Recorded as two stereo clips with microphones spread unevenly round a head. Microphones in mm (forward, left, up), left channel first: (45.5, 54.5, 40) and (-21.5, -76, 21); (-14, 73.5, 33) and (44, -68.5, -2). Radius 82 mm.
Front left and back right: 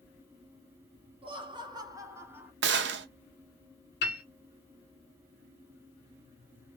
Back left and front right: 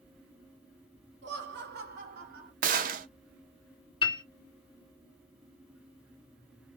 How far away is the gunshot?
About 0.6 m.